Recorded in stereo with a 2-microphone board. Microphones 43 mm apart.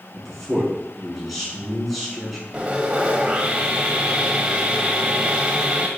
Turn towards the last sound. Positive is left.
turn(degrees=-25)  # may be behind; listen again after turning